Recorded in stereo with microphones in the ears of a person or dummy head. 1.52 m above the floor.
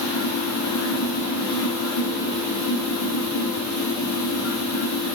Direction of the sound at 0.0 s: 75° left (ahead or behind).